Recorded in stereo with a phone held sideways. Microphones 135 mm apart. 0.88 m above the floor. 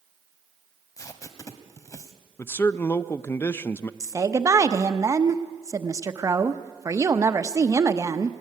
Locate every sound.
1.0 s tape being pulled: 25° left (ahead or behind), 1.5 m
2.4 s a man speaking: 20° left (ahead or behind), 0.6 m
4.0 s a woman speaking: 25° right (ahead or behind), 0.9 m